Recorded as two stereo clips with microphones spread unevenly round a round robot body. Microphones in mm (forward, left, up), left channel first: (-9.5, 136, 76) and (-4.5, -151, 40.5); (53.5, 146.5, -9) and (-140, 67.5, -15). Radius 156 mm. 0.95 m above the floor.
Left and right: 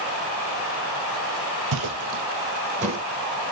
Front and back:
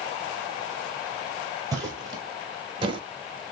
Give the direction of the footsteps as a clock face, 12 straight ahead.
3 o'clock.